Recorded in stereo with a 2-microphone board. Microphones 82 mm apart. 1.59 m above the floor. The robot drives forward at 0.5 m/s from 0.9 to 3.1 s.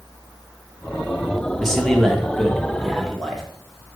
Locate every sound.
1.6 s a man speaking: 5° left (ahead or behind), 1.2 m